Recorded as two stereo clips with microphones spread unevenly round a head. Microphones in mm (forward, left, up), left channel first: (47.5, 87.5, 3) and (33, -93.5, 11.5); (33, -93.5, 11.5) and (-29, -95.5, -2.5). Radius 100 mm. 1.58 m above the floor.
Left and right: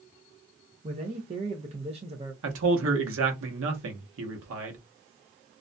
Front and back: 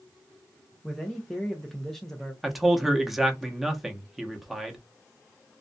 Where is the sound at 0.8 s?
65° right, 0.5 m.